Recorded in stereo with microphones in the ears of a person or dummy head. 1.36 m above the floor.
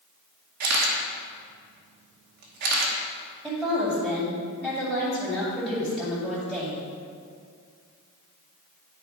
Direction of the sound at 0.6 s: 55° right (ahead or behind).